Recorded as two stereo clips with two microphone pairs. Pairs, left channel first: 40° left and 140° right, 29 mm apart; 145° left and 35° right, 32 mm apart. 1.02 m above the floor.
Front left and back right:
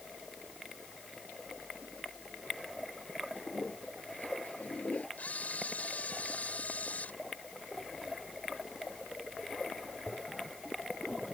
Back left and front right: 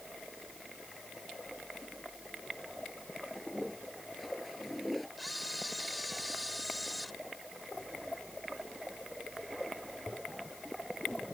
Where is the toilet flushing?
60° left.